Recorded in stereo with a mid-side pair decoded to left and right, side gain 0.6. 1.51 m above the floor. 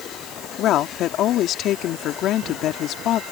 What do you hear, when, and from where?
0.6 s a woman speaking: 60° left